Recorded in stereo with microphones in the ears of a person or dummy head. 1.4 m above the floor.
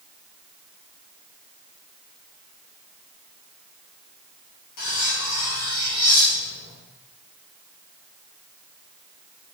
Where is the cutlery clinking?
70° left (ahead or behind), 2 m.